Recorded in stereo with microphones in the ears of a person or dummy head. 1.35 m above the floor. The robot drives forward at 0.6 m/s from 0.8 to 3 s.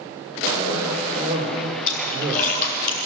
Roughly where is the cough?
Right.